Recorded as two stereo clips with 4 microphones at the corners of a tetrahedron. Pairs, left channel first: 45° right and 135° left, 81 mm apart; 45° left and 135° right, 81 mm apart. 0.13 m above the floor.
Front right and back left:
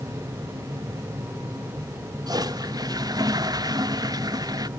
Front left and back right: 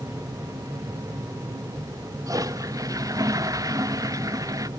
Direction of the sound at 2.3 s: Straight behind.